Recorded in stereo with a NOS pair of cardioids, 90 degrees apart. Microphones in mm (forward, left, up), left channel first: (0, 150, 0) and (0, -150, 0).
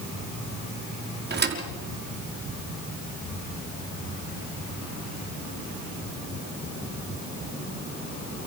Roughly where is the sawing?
No sawing in this recording.